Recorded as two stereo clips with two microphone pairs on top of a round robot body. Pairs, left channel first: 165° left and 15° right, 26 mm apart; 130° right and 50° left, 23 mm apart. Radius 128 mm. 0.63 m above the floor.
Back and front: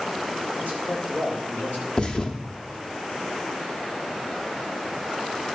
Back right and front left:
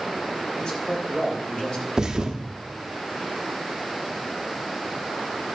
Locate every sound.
0.6 s a man speaking: 175° right, 4 m
2.0 s a thud: 105° left, 0.9 m